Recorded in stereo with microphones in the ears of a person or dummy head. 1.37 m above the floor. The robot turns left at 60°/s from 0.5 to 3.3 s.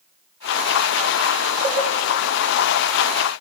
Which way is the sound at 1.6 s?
15° right (ahead or behind).